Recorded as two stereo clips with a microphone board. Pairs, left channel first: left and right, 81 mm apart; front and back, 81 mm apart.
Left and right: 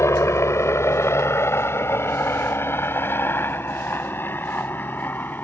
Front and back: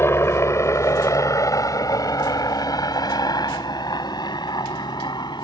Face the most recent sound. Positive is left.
turn(degrees=25)